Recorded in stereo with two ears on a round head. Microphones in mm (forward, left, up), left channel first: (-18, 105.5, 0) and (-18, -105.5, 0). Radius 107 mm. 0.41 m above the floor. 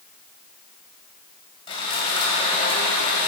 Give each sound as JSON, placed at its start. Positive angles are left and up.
{"t": 1.7, "sound": "sawing", "side_deg": 20, "distance_m": 2.0}